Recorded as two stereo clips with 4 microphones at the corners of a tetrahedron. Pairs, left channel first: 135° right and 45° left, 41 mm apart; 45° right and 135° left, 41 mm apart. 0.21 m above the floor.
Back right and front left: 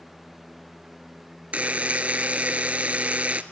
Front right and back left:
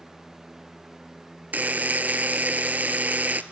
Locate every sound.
1.5 s a buzzer: 95° left, 0.8 m